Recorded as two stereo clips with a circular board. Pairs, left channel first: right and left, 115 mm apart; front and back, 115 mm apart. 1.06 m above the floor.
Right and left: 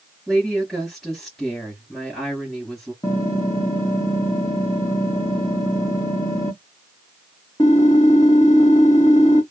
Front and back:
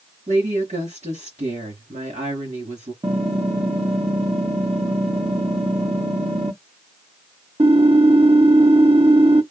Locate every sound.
0.3 s a woman speaking: 175° right, 2.5 m
3.0 s typing on a keyboard: 145° right, 1.6 m